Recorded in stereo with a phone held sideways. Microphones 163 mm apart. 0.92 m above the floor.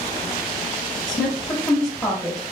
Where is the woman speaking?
25° left (ahead or behind), 1.6 m.